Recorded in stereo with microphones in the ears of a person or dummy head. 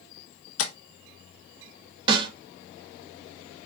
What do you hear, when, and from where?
0.6 s tapping: 75° left (ahead or behind), 1.4 m
2.1 s a snare drum: 25° right (ahead or behind), 2.5 m